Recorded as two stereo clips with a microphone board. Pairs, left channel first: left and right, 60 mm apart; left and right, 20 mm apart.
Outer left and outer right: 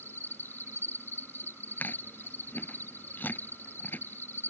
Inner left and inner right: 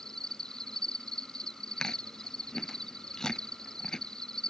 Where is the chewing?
30° left (ahead or behind).